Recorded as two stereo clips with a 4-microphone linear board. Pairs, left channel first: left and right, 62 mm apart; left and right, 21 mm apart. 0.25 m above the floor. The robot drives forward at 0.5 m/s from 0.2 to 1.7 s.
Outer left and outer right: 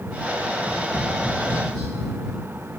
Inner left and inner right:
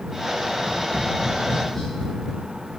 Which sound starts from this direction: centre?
Tapping, at 0.5 s.